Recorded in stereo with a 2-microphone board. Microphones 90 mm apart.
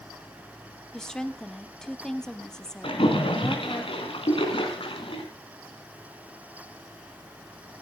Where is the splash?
80° left, 3.5 m.